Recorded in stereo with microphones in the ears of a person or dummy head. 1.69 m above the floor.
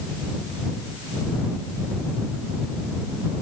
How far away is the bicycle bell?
I don't hear a bicycle bell.